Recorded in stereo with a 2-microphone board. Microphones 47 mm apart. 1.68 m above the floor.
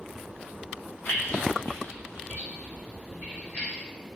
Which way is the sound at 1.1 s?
60° left (ahead or behind).